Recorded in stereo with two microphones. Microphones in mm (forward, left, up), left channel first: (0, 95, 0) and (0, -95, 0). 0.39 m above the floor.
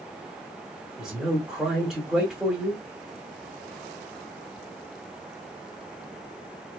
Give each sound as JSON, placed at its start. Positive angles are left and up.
{"t": 1.0, "sound": "a man speaking", "side_deg": 0, "distance_m": 1.6}